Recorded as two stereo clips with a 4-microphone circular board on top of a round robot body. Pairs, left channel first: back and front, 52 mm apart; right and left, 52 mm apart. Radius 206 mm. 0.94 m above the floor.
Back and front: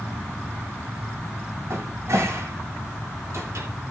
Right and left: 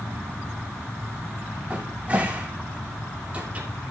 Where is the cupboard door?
25° left, 2.5 m.